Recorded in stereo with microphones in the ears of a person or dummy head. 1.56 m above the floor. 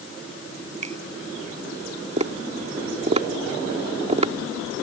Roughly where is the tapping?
Right.